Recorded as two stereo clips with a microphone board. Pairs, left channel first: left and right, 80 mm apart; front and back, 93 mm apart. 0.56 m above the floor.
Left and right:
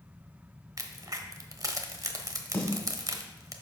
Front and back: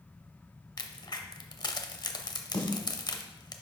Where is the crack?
45° right, 0.8 m.